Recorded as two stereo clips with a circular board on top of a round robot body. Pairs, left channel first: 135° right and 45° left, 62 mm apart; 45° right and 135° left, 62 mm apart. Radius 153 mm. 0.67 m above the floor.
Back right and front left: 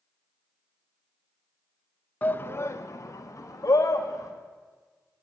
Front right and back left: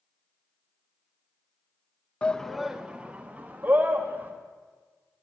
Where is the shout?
100° right, 0.6 m; by 4.3 s 170° right, 1.4 m.